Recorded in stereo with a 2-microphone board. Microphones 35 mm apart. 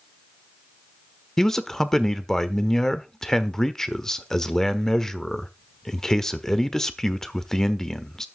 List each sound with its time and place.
1.4 s a man speaking: 10° left (ahead or behind), 1.1 m